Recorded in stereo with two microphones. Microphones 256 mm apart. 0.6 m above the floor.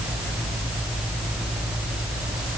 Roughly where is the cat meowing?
No cat meowing in this recording.